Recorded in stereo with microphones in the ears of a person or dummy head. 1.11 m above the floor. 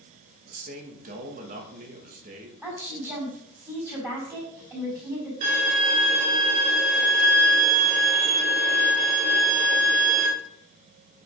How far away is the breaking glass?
No breaking glass in this recording.